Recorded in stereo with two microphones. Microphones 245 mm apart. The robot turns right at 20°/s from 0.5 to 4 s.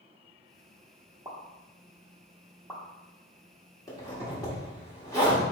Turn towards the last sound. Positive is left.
turn(degrees=15)  # may be behind; listen again after turning